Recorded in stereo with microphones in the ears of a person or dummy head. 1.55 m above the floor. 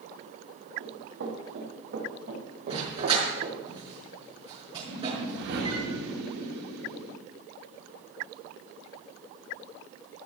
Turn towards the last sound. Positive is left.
turn(degrees=-65)  # may be behind; listen again after turning